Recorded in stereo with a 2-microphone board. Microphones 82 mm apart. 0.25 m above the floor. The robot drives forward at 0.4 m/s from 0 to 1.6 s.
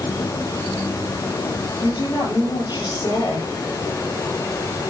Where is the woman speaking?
65° left (ahead or behind), 5.5 m.